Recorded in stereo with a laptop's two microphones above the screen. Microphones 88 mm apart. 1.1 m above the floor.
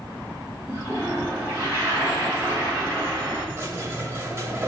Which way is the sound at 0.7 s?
30° right (ahead or behind).